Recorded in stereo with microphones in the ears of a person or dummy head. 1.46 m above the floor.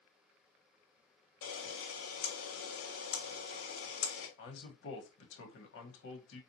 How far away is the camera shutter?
About 1.2 m.